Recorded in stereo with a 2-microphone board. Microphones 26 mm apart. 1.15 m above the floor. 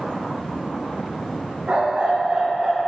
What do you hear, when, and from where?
1.7 s a dog barking: 65° right (ahead or behind), 2 m; by 2.8 s 30° right (ahead or behind), 1.2 m